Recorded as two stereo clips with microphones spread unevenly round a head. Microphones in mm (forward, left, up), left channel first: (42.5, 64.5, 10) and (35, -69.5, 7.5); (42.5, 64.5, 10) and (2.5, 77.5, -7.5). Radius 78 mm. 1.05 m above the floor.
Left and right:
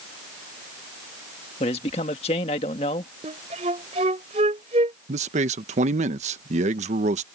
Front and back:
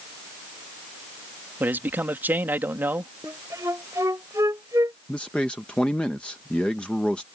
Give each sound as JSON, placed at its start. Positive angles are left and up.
{"t": 1.6, "sound": "a man speaking", "azimuth_deg": 140}
{"t": 3.2, "sound": "a flute", "azimuth_deg": -145}
{"t": 5.1, "sound": "a man speaking", "azimuth_deg": -105}